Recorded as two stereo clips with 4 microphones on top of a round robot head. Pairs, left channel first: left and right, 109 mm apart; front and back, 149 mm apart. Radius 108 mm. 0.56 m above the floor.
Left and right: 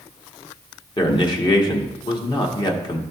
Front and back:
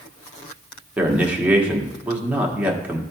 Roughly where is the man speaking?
Left.